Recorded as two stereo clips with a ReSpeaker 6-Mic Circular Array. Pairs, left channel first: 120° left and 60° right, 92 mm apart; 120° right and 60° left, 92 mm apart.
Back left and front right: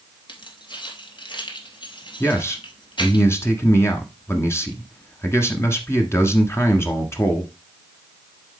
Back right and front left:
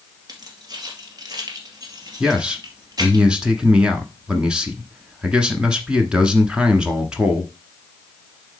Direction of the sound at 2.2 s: 130° left.